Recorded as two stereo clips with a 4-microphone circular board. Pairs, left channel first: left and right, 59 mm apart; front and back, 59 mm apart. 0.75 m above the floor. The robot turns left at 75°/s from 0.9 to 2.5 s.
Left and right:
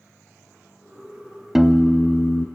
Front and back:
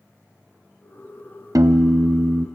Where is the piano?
170° right, 0.5 m; by 2.5 s 120° left, 0.5 m.